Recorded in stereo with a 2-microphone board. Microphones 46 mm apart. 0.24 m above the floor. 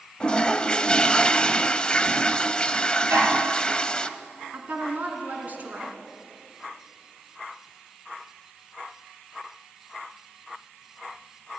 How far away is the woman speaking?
About 2.5 m.